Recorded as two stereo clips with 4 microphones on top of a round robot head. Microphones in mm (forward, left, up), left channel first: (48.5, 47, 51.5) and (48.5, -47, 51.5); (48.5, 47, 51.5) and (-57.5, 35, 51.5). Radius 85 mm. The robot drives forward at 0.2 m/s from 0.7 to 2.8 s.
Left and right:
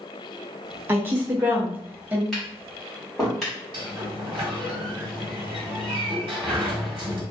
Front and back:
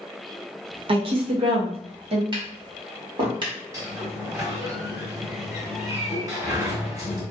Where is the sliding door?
115° right, 0.9 m.